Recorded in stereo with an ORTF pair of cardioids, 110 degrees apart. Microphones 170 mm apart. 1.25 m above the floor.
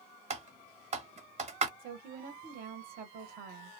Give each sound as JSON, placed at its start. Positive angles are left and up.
{"t": 0.3, "sound": "typing on a keyboard", "azimuth_deg": -40, "distance_m": 1.0}
{"t": 1.8, "sound": "a woman speaking", "azimuth_deg": -60, "distance_m": 1.0}